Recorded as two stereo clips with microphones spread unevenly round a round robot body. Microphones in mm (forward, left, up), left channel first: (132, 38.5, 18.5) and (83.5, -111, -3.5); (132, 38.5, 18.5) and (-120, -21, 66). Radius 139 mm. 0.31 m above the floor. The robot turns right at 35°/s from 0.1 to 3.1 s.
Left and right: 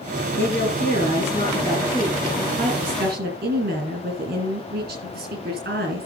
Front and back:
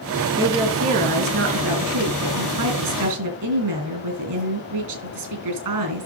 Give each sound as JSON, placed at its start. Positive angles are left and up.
{"t": 0.4, "sound": "a woman speaking", "azimuth_deg": 110, "distance_m": 5.0}